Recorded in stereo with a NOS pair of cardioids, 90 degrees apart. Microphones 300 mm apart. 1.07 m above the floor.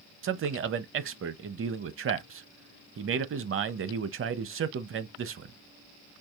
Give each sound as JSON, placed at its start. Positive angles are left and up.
{"t": 0.2, "sound": "a man speaking", "azimuth_deg": -45, "distance_m": 0.7}